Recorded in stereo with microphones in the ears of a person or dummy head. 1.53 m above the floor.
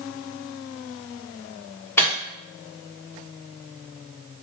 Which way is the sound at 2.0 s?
10° left (ahead or behind).